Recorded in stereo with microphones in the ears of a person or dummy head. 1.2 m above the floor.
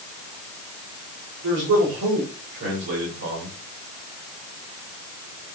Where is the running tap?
No running tap in this recording.